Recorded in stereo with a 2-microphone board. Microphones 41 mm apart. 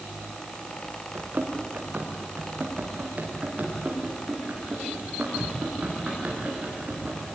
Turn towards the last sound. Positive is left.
turn(degrees=-40)  # may be behind; listen again after turning